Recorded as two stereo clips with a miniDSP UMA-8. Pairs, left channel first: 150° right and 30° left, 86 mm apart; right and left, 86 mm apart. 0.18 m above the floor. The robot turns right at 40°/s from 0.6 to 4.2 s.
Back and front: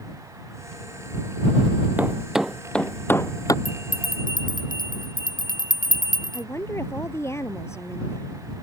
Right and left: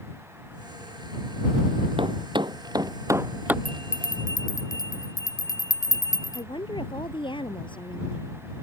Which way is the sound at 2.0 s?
100° left.